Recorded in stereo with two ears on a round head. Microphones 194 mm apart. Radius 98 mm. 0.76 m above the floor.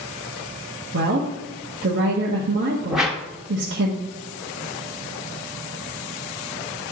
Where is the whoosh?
5° right (ahead or behind), 0.9 m.